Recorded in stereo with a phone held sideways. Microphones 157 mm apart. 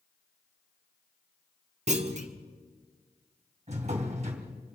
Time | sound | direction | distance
1.9 | a clunk | 45° right (ahead or behind) | 1.3 m
3.7 | a drawer | 45° right (ahead or behind) | 2.5 m